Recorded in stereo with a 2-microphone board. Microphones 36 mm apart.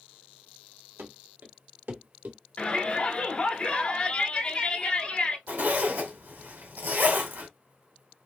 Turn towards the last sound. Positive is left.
turn(degrees=-75)  # may be behind; listen again after turning